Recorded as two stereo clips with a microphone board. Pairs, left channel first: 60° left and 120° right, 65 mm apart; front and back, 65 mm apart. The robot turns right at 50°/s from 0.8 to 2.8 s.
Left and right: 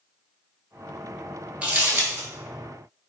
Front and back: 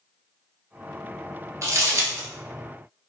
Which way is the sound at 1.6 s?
Straight behind.